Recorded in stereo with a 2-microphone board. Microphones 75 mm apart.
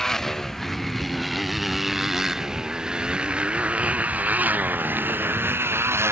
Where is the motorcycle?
10° left (ahead or behind); by 6.1 s 35° right (ahead or behind).